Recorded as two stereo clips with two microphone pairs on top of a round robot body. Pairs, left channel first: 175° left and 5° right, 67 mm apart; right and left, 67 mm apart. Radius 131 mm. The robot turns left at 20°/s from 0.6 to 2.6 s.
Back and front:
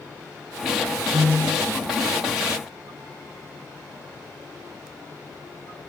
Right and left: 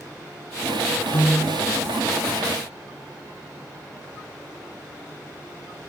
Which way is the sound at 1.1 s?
35° right.